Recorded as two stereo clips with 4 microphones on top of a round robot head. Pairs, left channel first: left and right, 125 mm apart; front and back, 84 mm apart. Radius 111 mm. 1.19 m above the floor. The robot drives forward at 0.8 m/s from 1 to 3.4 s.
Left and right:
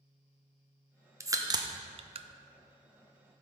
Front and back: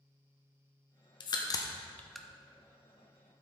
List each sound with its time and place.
1.2 s a crack: 25° right, 0.9 m; by 2.3 s 100° right, 0.5 m